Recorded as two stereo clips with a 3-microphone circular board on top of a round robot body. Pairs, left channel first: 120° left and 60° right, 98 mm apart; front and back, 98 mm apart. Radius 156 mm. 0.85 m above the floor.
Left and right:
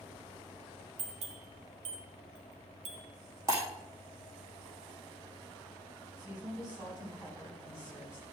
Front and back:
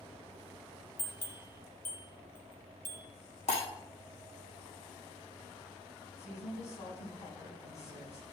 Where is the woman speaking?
15° left, 8 m.